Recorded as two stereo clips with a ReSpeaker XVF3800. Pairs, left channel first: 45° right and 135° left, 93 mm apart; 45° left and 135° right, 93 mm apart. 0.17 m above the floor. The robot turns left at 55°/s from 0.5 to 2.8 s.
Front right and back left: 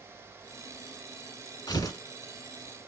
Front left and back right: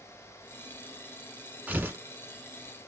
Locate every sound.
1.7 s tearing paper: 65° right, 1.1 m; by 2.0 s 85° right, 1.1 m